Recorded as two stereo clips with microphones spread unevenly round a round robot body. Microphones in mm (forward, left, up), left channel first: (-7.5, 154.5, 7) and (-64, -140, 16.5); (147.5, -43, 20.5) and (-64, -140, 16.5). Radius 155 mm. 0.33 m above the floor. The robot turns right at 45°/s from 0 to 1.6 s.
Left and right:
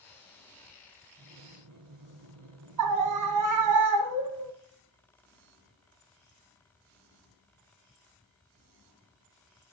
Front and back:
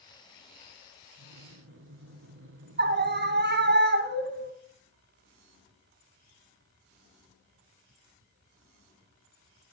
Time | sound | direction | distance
1.2 | breathing | 145° right | 2.5 m
2.8 | a scream | 115° right | 2.5 m